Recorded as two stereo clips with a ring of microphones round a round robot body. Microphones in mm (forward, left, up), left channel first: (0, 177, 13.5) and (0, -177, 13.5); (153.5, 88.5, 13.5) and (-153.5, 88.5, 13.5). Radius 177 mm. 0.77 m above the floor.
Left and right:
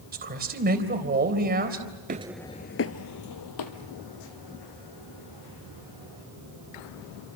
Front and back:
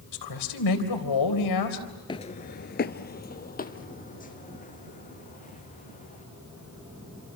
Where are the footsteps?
60° right, 0.8 m; by 6.2 s 65° left, 5 m.